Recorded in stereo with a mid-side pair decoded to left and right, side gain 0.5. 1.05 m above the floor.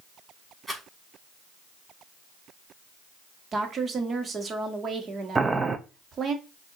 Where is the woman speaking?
40° right, 1.4 m.